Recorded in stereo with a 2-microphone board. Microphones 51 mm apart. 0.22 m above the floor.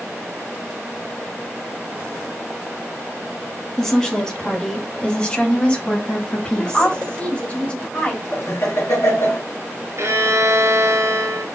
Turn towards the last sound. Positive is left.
turn(degrees=-65)  # may be behind; listen again after turning